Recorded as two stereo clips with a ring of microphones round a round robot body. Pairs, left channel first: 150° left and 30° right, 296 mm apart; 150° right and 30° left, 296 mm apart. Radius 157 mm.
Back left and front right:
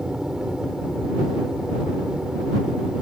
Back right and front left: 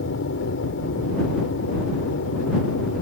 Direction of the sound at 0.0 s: 120° right.